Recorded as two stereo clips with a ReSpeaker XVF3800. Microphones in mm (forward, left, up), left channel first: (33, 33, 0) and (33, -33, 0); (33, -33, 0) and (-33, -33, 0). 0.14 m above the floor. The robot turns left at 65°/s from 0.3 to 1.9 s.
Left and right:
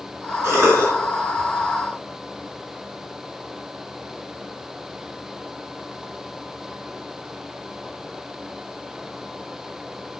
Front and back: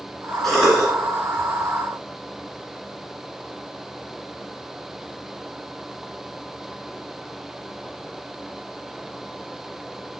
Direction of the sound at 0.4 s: 80° right.